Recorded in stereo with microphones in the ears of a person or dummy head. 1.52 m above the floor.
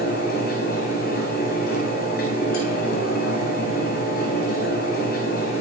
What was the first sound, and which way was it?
A fan, 60° left (ahead or behind).